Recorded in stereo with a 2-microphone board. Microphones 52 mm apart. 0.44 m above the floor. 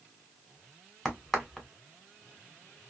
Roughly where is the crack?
Centre.